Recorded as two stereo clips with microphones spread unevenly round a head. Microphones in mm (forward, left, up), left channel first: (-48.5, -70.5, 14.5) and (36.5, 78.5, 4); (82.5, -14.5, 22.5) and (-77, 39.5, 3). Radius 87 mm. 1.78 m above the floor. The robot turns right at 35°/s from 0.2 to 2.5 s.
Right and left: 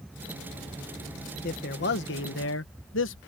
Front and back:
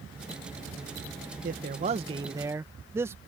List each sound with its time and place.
1.4 s a man speaking: 155° right; by 3.2 s 120° right